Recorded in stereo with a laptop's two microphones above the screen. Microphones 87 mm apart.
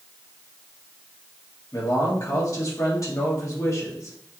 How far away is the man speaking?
About 1.5 m.